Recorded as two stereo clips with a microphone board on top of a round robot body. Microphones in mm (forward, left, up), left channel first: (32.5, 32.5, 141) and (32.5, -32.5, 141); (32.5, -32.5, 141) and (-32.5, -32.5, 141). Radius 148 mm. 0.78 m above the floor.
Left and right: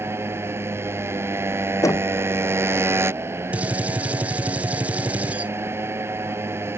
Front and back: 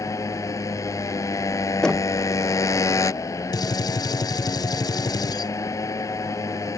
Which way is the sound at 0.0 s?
40° right.